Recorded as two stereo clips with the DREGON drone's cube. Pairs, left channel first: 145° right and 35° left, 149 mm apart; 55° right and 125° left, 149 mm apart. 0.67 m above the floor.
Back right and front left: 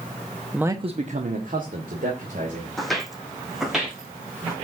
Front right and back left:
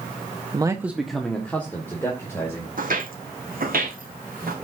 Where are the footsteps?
125° left, 1.8 m; by 4.5 s 120° left, 3.5 m.